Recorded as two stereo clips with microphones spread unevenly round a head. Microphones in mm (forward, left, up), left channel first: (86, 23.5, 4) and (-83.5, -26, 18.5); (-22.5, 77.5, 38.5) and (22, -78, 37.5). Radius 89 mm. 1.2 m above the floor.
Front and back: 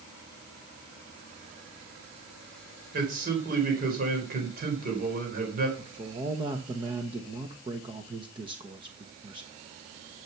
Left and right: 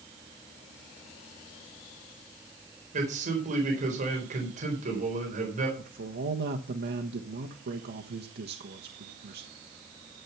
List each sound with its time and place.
2.9 s a man speaking: 120° right, 4.5 m
5.8 s a man speaking: 100° right, 1.2 m